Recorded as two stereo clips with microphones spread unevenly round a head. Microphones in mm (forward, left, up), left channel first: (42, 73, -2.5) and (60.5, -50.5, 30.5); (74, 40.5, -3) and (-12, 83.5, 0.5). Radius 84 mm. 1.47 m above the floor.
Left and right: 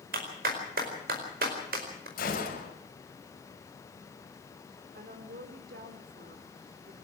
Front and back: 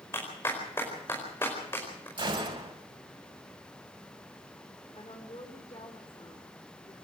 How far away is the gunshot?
About 6 m.